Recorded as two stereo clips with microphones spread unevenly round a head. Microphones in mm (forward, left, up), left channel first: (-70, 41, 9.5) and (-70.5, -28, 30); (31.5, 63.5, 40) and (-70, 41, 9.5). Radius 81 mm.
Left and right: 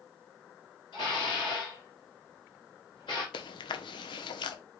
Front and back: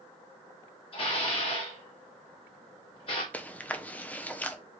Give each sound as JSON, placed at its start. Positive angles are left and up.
{"t": 0.9, "sound": "dishes clattering", "azimuth_deg": 25, "distance_m": 1.5}
{"t": 3.3, "sound": "chewing", "azimuth_deg": 85, "distance_m": 0.7}